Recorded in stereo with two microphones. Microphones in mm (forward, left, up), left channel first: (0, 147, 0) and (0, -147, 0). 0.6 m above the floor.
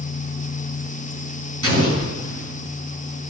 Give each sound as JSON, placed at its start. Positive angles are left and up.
{"t": 1.6, "sound": "an explosion", "side_deg": -50, "distance_m": 4.5}